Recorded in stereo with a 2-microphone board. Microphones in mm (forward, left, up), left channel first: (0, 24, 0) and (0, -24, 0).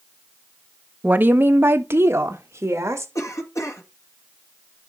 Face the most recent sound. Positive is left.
turn(degrees=75)  # may be behind; listen again after turning